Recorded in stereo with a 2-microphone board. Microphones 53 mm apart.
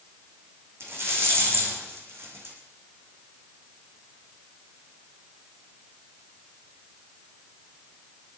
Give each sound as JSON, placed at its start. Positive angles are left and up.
{"t": 0.8, "sound": "a rattle", "side_deg": -50, "distance_m": 4.5}